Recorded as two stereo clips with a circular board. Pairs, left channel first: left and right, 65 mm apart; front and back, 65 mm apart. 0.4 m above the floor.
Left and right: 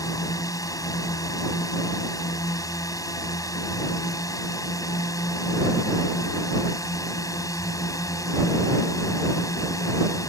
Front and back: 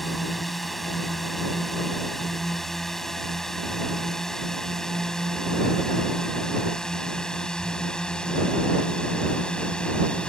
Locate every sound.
0.0 s a drone: 90° left; by 10.3 s 75° left